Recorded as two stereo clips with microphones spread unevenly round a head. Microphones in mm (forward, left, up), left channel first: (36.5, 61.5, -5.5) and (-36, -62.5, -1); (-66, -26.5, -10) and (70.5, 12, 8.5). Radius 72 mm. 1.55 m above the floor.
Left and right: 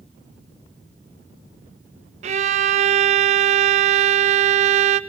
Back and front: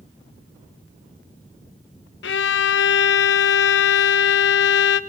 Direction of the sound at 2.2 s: 165° right.